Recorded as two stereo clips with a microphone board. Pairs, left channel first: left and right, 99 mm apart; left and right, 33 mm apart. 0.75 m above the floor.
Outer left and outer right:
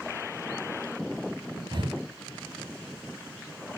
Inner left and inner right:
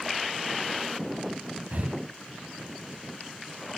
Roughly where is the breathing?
Right.